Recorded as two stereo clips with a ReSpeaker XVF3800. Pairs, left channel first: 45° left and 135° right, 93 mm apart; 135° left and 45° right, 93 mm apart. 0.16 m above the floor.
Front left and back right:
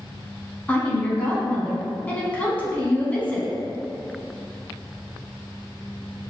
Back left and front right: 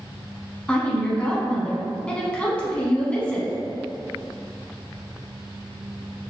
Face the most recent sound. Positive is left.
turn(degrees=85)